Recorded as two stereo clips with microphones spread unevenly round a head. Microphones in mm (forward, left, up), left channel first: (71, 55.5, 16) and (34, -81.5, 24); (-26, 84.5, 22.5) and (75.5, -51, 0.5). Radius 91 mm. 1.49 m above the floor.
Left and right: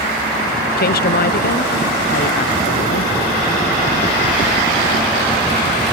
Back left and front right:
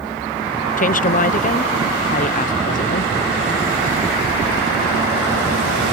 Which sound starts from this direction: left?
A woman speaking, at 0.8 s.